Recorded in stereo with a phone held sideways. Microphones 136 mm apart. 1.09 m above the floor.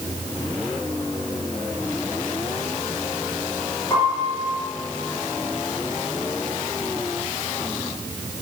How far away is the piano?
About 6 m.